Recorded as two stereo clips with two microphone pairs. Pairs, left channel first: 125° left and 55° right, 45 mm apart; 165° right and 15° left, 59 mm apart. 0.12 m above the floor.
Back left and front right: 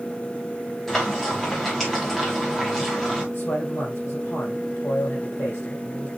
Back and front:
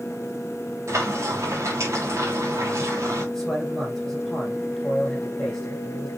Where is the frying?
45° left, 5 m.